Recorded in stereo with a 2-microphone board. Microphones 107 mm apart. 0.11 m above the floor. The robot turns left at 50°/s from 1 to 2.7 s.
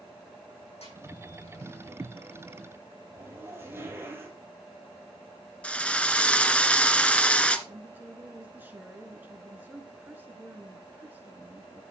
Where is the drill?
10° left (ahead or behind), 0.9 m.